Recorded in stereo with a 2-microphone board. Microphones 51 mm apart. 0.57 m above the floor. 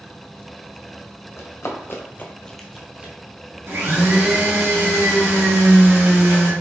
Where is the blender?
55° right (ahead or behind), 1.9 m.